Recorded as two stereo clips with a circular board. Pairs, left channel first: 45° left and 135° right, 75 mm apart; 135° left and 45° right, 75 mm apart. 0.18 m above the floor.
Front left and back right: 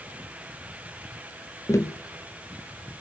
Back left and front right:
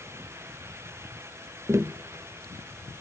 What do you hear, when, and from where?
1.7 s tapping: 5° left, 0.7 m